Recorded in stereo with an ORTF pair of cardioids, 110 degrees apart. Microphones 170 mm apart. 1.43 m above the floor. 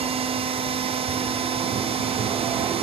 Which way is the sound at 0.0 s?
35° right.